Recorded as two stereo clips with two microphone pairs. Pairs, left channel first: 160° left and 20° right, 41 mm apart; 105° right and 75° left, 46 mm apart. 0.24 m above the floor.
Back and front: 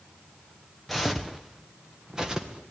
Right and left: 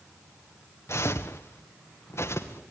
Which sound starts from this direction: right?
Footsteps, at 0.9 s.